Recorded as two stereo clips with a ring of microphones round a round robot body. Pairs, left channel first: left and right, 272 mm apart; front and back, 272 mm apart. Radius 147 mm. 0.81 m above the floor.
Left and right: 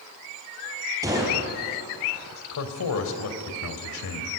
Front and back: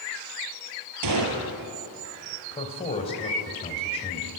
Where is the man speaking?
70° left, 3 m.